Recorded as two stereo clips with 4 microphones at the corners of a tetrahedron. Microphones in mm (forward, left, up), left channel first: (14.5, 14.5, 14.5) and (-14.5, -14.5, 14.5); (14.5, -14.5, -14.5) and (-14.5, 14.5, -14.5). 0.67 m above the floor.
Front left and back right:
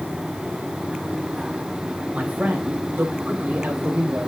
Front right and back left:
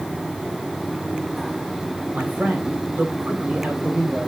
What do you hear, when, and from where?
2.1 s a man speaking: 175° left, 3.5 m; by 4.3 s 165° right, 3.5 m